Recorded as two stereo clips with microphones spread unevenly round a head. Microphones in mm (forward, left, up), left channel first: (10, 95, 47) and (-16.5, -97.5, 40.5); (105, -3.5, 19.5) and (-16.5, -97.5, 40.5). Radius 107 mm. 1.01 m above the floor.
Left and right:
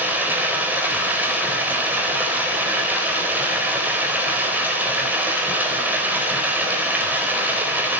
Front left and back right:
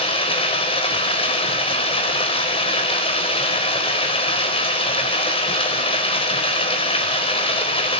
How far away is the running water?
About 4 m.